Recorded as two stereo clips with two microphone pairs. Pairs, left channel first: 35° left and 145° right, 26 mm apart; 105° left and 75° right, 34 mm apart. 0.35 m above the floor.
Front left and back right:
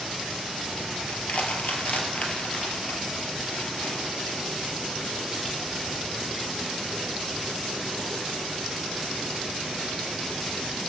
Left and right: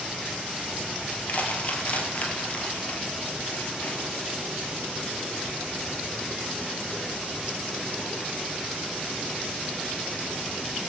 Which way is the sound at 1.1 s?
65° left.